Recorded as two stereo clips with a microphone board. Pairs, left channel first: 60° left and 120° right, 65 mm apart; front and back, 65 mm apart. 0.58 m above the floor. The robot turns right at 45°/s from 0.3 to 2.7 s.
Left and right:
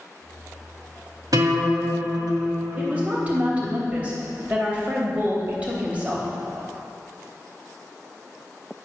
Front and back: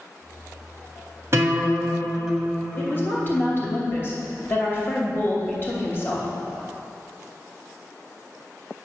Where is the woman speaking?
55° right, 2.5 m.